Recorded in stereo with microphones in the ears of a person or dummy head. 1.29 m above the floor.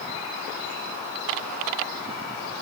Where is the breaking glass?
No breaking glass in this recording.